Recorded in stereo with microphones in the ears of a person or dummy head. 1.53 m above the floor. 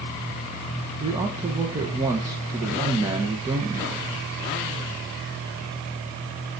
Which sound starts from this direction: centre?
A man speaking, at 1.0 s.